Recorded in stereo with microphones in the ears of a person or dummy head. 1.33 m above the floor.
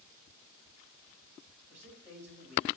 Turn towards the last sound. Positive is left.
turn(degrees=-10)  # may be behind; listen again after turning